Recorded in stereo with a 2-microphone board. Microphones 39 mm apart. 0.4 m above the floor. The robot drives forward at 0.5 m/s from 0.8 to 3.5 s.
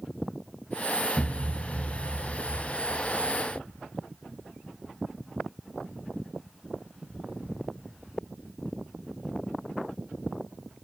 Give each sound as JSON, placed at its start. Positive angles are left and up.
{"t": 1.2, "sound": "a thud", "side_deg": 25, "distance_m": 1.1}